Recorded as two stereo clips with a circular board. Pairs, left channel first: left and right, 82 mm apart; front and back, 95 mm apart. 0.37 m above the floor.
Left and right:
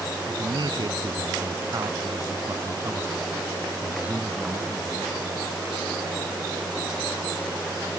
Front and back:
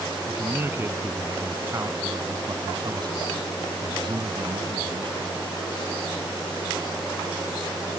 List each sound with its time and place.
0.3 s a man speaking: 115° right; by 5.3 s straight behind